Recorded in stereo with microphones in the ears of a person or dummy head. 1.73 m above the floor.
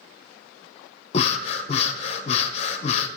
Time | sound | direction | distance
1.1 | breathing | 40° left (ahead or behind) | 0.8 m